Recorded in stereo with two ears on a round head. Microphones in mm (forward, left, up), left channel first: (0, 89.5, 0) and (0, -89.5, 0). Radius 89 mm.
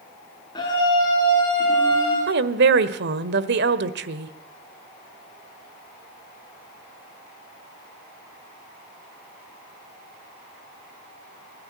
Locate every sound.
0.6 s a scream: 20° left (ahead or behind), 5.5 m
2.3 s a woman speaking: 60° right (ahead or behind), 1.4 m